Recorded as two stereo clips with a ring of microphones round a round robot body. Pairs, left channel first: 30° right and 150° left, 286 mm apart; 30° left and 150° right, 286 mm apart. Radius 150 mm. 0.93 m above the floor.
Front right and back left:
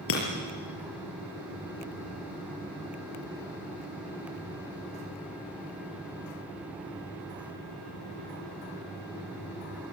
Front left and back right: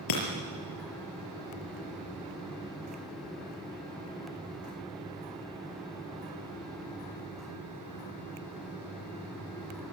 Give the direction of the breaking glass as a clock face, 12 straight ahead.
11 o'clock.